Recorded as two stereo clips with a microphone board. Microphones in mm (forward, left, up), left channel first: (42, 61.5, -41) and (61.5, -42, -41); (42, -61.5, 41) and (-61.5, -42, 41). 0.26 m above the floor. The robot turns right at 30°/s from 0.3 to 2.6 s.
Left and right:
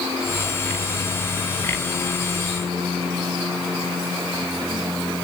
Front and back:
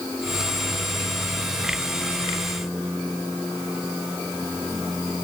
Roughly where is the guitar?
No guitar in this recording.